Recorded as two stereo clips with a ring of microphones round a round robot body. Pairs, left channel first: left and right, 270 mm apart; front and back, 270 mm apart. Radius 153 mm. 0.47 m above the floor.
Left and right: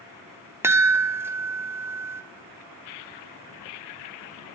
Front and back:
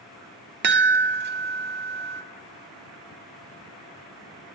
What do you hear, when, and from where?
0.6 s a chime: 165° right, 0.6 m